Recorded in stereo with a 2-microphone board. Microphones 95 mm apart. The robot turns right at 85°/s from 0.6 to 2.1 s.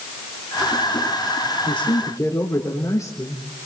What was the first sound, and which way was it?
A man speaking, 105° left.